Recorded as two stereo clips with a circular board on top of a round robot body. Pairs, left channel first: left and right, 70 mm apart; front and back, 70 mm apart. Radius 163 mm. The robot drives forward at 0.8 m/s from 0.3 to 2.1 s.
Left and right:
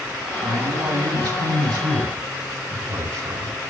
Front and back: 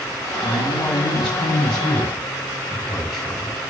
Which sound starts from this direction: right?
A man speaking, at 0.4 s.